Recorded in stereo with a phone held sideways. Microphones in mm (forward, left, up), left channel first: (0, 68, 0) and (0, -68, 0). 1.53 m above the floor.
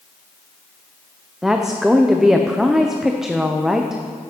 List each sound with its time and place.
1.4 s a woman speaking: 5° right (ahead or behind), 0.6 m